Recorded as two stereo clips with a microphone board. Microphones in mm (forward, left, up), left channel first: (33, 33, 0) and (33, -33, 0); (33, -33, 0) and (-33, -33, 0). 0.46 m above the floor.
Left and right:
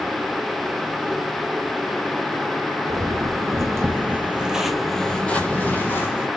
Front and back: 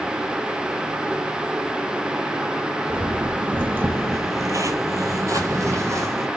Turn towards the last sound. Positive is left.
turn(degrees=140)